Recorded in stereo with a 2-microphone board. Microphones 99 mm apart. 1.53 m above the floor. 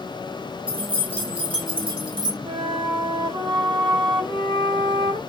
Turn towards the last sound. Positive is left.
turn(degrees=-60)  # may be behind; listen again after turning